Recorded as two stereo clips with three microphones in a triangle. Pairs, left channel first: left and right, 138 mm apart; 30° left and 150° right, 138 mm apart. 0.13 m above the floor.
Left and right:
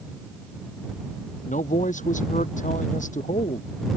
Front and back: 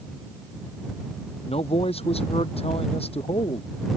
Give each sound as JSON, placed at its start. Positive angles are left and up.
{"t": 1.4, "sound": "a man speaking", "azimuth_deg": 70}